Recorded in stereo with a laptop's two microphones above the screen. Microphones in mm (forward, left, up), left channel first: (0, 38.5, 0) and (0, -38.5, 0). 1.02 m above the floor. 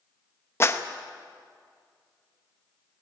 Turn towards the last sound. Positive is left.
turn(degrees=35)  # may be behind; listen again after turning